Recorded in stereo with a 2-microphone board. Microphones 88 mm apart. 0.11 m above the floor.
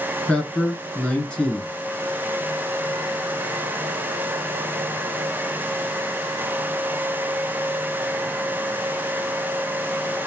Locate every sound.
0.3 s a man speaking: 10° left (ahead or behind), 1.2 m